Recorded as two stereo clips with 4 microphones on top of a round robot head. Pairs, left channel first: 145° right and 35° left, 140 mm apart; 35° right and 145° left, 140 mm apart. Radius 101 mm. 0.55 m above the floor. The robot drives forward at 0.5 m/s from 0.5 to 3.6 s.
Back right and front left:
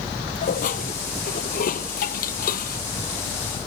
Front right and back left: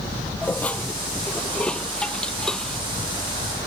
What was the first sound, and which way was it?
Dishes clattering, 115° right.